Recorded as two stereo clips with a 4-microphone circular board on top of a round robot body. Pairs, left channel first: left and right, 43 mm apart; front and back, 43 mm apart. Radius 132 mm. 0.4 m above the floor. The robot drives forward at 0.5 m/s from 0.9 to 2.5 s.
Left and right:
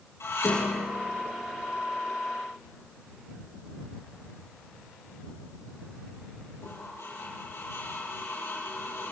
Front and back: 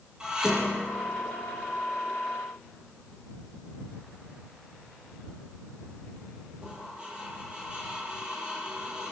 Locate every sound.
0.2 s dishes clattering: 105° left, 9.5 m; by 9.1 s 110° left, 9.5 m